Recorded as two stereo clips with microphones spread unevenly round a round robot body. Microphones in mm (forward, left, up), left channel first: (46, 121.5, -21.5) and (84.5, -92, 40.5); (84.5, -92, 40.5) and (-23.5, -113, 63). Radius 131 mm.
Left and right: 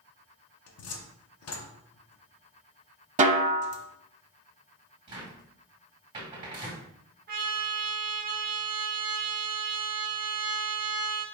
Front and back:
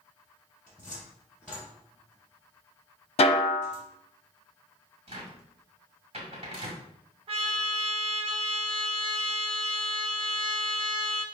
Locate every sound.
0.7 s a cupboard door: 95° left, 0.7 m
3.2 s a snare drum: 20° right, 0.6 m
5.1 s a cupboard door: 165° right, 1.8 m
7.3 s a trumpet: 140° right, 0.6 m